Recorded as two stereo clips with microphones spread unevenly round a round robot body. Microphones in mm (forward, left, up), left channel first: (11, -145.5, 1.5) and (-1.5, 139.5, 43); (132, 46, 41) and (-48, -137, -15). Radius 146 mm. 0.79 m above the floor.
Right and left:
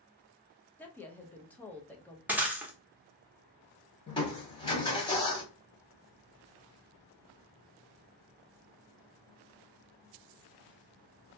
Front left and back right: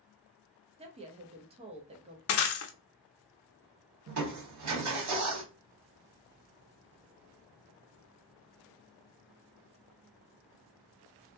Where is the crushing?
160° right, 1.2 m.